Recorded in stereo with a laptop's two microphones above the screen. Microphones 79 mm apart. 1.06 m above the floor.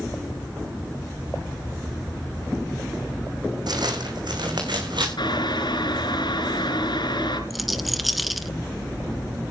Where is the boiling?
80° left, 4.5 m.